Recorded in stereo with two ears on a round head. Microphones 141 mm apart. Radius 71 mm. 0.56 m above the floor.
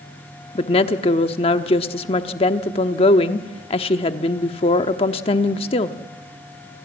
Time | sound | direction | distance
0.6 | a woman speaking | 35° left (ahead or behind) | 1.0 m